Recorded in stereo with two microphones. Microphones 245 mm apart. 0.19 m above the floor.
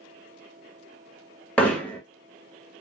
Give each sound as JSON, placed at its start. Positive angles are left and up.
{"t": 1.6, "sound": "hammering", "side_deg": 5, "distance_m": 0.8}